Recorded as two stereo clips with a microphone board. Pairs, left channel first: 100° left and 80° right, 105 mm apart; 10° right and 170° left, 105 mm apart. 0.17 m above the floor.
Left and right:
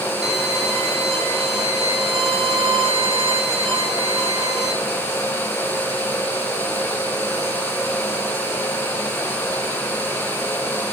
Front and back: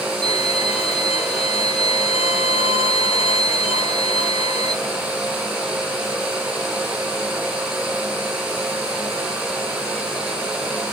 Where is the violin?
5° left, 4.5 m.